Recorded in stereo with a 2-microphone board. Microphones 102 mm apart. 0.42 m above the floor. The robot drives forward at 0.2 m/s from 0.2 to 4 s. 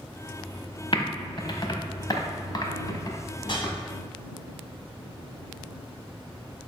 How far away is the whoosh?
About 1.3 m.